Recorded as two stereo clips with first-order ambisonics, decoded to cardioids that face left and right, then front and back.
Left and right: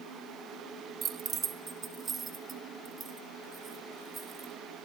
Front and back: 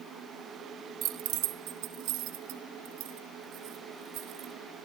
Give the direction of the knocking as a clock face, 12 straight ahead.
No knocking in this recording.